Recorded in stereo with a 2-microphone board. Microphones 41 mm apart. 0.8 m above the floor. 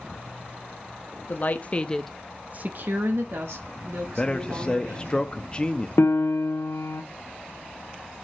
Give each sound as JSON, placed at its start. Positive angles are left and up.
{"t": 1.3, "sound": "a woman speaking", "side_deg": 50, "distance_m": 0.9}
{"t": 4.2, "sound": "a man speaking", "side_deg": 25, "distance_m": 0.7}
{"t": 6.0, "sound": "a piano", "side_deg": 80, "distance_m": 0.9}